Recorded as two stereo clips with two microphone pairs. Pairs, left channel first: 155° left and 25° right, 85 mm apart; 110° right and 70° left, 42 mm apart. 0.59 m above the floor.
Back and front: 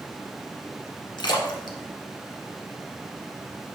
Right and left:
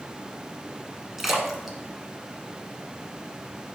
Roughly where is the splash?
Behind left.